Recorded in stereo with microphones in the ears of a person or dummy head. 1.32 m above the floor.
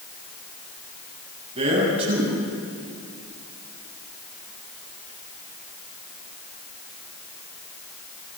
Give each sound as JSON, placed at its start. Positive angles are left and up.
{"t": 1.6, "sound": "a man speaking", "side_deg": -30, "distance_m": 9.0}